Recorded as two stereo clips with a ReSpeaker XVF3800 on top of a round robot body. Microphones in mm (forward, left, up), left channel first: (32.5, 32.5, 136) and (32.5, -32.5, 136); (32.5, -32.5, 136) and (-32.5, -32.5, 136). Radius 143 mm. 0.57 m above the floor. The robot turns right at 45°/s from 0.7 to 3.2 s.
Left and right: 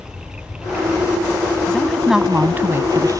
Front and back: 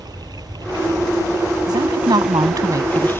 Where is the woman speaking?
165° left; by 3.1 s 130° right.